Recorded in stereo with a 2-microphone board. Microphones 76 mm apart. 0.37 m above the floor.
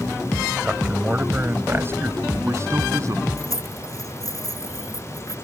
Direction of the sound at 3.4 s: 50° left (ahead or behind).